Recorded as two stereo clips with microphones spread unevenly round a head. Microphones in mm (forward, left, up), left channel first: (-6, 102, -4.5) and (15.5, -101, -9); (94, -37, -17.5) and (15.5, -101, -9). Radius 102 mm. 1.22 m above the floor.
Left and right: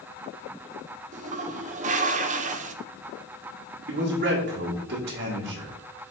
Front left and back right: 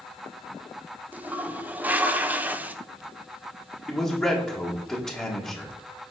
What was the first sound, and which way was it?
A toilet flushing, 70° right.